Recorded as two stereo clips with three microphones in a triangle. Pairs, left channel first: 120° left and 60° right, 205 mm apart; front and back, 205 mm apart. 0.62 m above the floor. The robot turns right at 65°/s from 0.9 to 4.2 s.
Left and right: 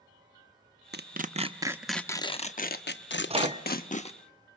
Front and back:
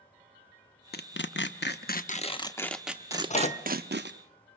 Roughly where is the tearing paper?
Ahead right.